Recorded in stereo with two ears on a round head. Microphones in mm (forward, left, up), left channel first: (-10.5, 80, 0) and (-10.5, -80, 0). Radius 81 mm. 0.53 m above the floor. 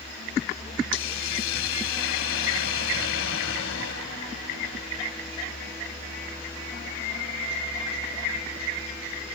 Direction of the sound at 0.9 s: 80° left.